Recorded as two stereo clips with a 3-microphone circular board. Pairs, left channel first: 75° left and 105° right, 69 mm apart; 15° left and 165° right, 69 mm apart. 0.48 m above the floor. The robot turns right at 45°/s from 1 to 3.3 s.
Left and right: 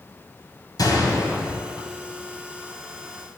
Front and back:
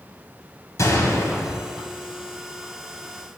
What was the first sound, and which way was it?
A gunshot, 55° left.